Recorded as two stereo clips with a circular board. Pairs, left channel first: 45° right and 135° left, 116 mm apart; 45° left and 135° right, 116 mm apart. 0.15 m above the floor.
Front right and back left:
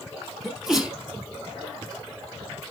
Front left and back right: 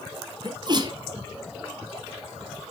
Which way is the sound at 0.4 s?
140° right.